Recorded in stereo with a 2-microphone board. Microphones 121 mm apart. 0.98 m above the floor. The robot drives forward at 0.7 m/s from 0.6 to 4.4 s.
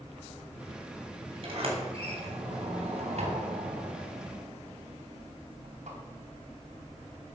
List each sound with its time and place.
1.4 s a sliding door: 50° right (ahead or behind), 4 m; by 6.0 s 80° right, 3 m